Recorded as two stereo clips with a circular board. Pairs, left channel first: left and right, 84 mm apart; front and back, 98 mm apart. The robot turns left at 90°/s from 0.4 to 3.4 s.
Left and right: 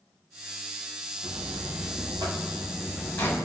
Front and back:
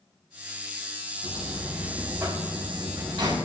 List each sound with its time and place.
1.2 s a buzzer: 25° right, 4 m; by 3.4 s 145° left, 4 m